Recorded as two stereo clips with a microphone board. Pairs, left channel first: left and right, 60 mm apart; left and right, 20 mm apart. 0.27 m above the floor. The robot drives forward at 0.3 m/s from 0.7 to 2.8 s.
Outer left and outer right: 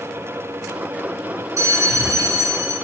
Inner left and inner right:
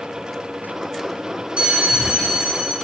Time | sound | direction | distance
1.6 | a bell | 70° right (ahead or behind) | 0.7 m